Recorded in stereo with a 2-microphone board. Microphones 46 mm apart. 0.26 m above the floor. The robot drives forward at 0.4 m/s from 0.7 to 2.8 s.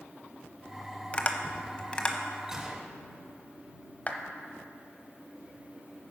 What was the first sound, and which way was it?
Tapping, 25° left (ahead or behind).